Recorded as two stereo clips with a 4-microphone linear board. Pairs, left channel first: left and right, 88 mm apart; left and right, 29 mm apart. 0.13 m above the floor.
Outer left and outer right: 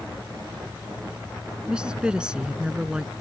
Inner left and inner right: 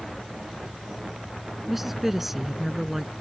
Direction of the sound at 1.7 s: 10° right (ahead or behind).